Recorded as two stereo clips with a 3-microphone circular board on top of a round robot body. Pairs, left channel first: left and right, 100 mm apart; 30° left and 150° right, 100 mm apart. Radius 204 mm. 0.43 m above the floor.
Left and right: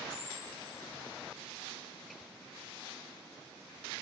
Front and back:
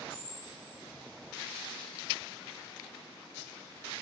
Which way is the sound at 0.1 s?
65° left.